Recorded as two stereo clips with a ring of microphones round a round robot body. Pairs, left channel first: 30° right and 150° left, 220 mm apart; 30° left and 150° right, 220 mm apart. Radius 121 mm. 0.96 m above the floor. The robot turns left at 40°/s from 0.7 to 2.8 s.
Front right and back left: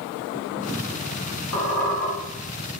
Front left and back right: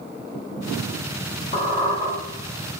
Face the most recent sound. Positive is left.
turn(degrees=-85)